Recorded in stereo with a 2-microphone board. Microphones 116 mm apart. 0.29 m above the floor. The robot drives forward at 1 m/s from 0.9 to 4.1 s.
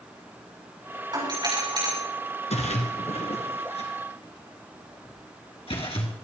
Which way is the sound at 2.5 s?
75° left (ahead or behind).